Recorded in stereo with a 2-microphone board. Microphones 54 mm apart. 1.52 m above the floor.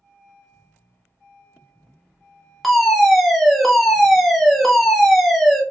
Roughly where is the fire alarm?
Centre.